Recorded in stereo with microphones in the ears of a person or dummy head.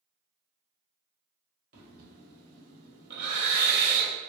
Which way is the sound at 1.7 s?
45° right (ahead or behind).